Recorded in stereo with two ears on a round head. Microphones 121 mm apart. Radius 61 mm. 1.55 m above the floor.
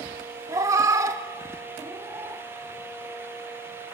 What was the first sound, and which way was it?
A cat meowing, 25° right (ahead or behind).